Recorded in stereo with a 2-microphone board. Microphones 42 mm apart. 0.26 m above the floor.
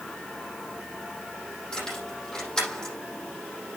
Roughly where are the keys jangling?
Centre.